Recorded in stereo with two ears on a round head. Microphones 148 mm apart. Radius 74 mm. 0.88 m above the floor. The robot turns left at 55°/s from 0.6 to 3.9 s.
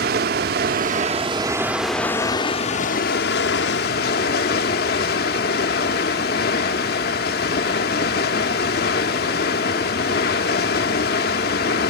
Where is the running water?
110° right, 0.8 m; by 11.9 s 70° left, 0.8 m.